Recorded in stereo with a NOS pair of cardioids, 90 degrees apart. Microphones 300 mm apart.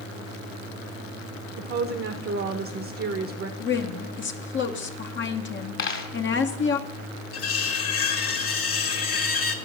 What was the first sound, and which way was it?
A woman speaking, 50° right.